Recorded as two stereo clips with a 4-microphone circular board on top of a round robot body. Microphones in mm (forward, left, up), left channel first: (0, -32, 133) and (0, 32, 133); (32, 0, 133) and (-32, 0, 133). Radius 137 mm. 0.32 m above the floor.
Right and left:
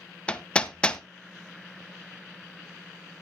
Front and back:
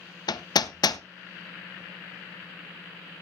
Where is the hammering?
15° right, 0.6 m.